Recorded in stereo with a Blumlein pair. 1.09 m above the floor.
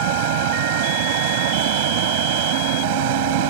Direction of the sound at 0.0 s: 50° right.